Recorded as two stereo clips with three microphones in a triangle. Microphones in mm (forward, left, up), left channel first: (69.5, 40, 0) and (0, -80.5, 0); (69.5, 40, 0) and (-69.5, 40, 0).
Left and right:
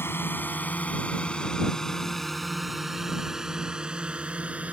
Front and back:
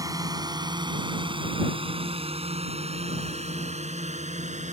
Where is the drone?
125° left; by 4.7 s 160° left.